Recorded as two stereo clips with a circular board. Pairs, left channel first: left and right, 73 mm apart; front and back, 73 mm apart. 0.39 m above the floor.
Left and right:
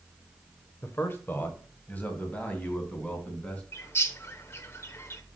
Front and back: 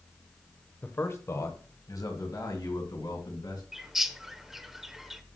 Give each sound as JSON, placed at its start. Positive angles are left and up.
{"t": 0.8, "sound": "a man speaking", "azimuth_deg": 50, "distance_m": 1.0}
{"t": 3.7, "sound": "a bird", "azimuth_deg": 95, "distance_m": 1.0}